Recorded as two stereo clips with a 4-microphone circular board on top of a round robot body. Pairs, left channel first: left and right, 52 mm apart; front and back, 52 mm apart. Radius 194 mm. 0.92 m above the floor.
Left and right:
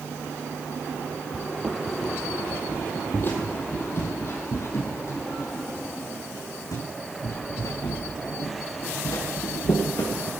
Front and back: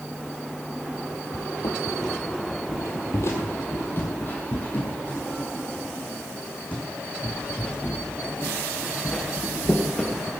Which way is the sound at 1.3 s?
15° right.